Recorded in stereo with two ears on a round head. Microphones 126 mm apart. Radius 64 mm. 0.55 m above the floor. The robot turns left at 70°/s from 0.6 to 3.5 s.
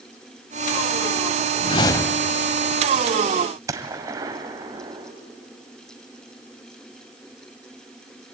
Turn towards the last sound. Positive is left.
turn(degrees=-25)  # may be behind; listen again after turning